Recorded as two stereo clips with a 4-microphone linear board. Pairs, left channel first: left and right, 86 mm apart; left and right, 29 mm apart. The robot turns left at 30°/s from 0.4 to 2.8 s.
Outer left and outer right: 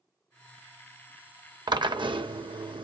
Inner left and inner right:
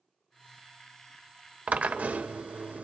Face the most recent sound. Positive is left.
turn(degrees=-95)